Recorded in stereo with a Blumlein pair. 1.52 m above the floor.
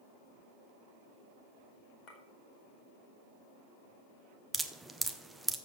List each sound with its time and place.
2.1 s a clink: 35° left, 2 m
4.5 s dripping: 5° right, 0.7 m